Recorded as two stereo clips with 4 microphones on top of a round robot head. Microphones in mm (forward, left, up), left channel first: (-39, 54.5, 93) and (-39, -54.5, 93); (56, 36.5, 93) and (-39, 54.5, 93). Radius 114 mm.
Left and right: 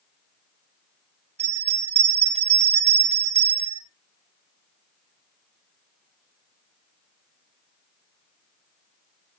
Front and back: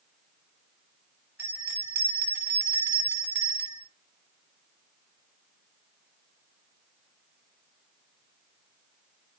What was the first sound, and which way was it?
A bell, 120° right.